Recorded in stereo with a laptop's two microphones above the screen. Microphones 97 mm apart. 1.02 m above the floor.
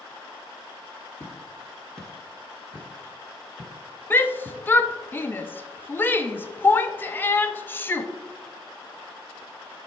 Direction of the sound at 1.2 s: 25° left (ahead or behind).